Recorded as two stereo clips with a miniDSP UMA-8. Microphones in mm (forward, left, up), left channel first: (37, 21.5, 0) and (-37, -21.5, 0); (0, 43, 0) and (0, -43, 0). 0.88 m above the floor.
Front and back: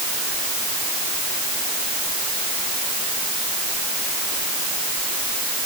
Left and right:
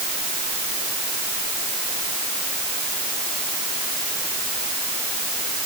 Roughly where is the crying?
I don't hear crying.